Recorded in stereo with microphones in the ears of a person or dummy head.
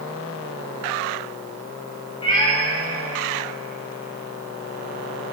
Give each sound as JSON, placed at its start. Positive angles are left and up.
{"t": 2.2, "sound": "a cat meowing", "side_deg": 30, "distance_m": 1.6}